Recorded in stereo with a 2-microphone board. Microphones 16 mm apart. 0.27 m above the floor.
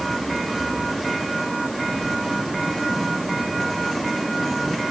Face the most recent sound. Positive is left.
No sound to turn to.